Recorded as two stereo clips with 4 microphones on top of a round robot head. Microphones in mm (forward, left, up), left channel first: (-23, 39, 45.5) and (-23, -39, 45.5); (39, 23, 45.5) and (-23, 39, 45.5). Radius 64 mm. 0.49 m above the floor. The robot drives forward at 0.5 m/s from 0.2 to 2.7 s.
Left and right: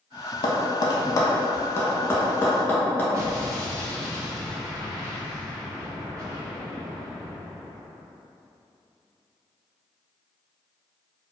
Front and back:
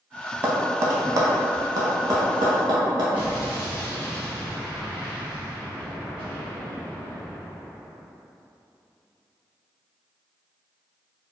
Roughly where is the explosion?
Behind right.